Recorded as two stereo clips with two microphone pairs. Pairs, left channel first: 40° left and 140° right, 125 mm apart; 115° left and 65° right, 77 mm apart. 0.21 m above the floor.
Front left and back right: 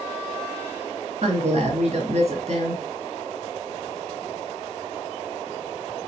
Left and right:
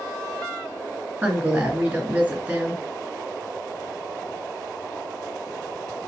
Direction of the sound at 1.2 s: 125° right.